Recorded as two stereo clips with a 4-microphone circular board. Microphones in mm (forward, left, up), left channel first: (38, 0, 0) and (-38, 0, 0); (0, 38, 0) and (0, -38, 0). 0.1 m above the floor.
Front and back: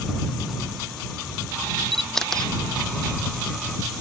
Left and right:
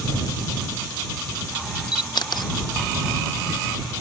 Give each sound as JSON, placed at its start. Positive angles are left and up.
{"t": 1.9, "sound": "a camera shutter", "azimuth_deg": 85}